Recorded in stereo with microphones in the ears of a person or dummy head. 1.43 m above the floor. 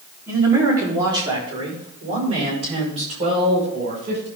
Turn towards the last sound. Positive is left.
turn(degrees=-40)  # may be behind; listen again after turning